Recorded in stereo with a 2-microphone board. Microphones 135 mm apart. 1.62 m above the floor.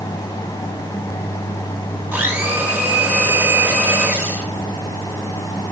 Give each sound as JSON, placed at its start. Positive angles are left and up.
{"t": 2.1, "sound": "a blender", "side_deg": -15, "distance_m": 6.0}